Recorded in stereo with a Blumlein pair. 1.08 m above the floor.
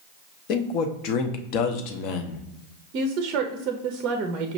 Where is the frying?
I don't hear frying.